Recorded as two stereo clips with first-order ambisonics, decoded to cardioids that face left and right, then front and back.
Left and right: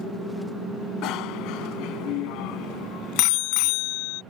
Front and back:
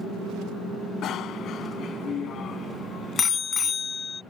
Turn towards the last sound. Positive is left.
turn(degrees=75)